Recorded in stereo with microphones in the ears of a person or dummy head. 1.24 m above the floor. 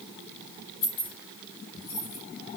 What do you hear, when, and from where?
0.8 s keys jangling: 55° left (ahead or behind), 3.5 m; by 2.2 s 35° left (ahead or behind), 3 m